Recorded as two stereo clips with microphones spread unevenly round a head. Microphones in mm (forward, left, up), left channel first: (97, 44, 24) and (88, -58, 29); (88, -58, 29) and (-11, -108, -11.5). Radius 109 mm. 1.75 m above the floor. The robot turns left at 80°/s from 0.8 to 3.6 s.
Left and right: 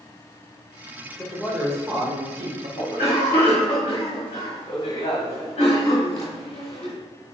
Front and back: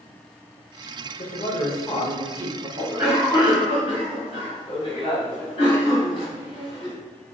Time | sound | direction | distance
1.2 | a man speaking | 10° left | 1.3 m
2.8 | a cough | 140° left | 1.4 m